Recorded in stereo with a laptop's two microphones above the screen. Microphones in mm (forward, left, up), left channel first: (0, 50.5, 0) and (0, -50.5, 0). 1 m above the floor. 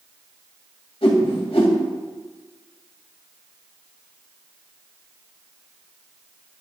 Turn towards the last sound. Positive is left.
turn(degrees=80)